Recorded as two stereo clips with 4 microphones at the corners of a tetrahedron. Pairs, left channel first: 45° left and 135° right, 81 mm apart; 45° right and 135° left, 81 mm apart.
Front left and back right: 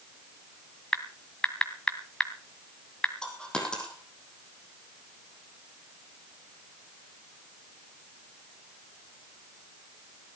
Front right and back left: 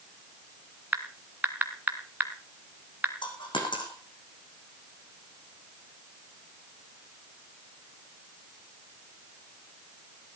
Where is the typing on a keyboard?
115° left, 1.7 m.